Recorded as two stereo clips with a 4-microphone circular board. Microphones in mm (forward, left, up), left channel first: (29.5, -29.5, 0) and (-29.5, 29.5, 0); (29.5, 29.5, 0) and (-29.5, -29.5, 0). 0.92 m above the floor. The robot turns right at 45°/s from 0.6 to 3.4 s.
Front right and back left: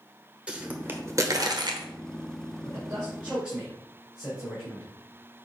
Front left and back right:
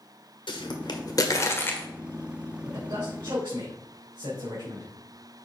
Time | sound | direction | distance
0.5 | a pop | 60° left | 1.3 m
2.6 | a man speaking | 175° left | 4 m